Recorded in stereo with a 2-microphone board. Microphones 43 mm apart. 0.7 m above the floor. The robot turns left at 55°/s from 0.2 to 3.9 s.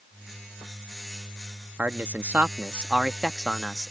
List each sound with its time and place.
1.8 s a man speaking: 85° right; by 3.9 s 160° left